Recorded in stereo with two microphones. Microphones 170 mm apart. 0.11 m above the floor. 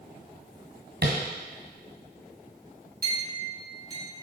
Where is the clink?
60° right (ahead or behind), 2.5 m.